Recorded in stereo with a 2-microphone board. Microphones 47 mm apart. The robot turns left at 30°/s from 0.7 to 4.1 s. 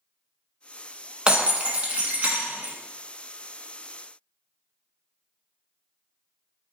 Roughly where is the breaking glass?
Ahead right.